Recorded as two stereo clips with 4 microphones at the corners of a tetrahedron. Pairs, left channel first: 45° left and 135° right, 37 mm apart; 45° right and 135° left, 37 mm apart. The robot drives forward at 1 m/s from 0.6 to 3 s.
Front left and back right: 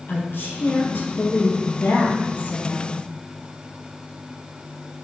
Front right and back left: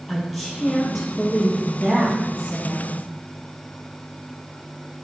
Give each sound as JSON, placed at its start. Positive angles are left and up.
{"t": 0.1, "sound": "a woman speaking", "azimuth_deg": 50, "distance_m": 5.0}